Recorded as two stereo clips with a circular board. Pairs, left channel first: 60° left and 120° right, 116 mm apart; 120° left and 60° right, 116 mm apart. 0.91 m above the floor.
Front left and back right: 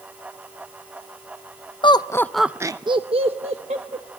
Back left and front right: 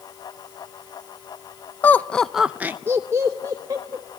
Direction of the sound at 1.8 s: 55° left.